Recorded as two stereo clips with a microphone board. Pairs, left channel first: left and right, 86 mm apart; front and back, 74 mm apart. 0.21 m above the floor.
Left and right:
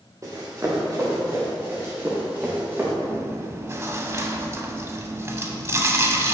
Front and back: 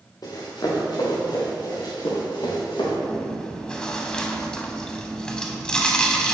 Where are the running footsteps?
35° right, 1.8 m; by 2.9 s 20° right, 3 m.